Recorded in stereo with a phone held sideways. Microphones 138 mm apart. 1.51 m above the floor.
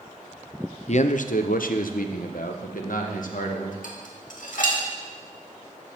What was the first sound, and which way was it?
A man speaking, 55° left (ahead or behind).